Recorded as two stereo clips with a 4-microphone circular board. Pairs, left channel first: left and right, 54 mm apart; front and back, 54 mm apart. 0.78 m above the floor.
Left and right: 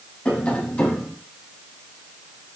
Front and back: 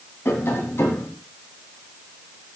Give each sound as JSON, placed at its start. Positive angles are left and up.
{"t": 0.2, "sound": "tapping", "azimuth_deg": 25, "distance_m": 1.5}